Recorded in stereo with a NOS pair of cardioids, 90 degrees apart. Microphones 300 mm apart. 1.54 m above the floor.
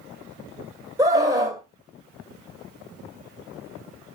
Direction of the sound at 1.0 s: 10° right.